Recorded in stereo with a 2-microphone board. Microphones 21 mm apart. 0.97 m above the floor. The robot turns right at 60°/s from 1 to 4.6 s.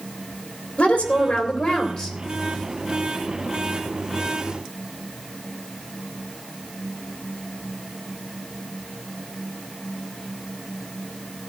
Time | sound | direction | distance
0.8 | a woman speaking | 75° left | 2.5 m